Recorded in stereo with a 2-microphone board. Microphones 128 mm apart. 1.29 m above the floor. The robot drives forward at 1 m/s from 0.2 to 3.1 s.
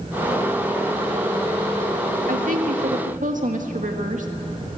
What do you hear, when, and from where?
2.3 s a woman speaking: 80° right, 1.9 m; by 4.3 s 75° right (ahead or behind), 2.0 m